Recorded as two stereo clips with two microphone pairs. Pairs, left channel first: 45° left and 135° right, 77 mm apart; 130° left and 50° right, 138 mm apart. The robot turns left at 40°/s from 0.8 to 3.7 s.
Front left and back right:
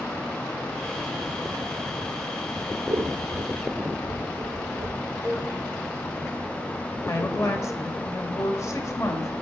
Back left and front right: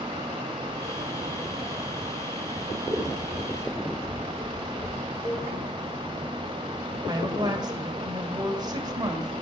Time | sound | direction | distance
2.9 | scissors | 130° right | 0.8 m
5.2 | a cowbell | 95° left | 6.5 m
7.1 | a woman speaking | 5° left | 1.9 m